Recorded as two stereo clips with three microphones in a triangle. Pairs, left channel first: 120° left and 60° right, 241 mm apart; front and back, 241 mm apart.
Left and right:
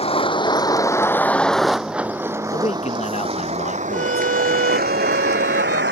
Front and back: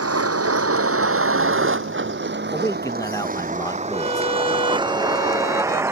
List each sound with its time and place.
0.0 s a vehicle: 175° right; by 5.9 s 100° right
2.5 s a man speaking: 70° left
3.9 s a violin: 50° right